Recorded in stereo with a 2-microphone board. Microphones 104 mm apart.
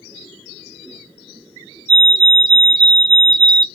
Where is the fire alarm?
35° right (ahead or behind), 2.5 m.